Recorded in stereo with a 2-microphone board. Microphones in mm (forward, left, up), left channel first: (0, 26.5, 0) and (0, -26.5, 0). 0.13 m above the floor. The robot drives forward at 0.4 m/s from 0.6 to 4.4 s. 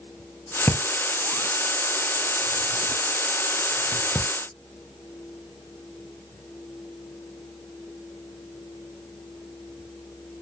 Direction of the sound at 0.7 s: 45° left (ahead or behind).